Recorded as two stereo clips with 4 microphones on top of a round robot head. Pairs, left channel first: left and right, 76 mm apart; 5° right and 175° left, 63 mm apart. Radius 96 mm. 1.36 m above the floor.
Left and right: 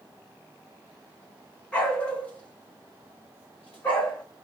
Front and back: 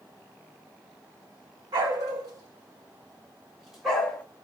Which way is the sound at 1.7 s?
165° left.